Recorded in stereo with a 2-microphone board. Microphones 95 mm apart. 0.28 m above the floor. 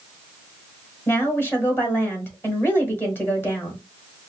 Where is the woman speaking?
25° left (ahead or behind), 1.6 m.